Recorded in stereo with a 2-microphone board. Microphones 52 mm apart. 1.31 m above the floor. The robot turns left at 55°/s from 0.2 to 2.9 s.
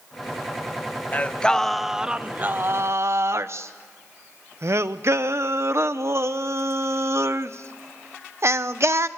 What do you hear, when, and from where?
1.1 s singing: 35° left, 0.8 m; by 9.1 s 60° right, 0.8 m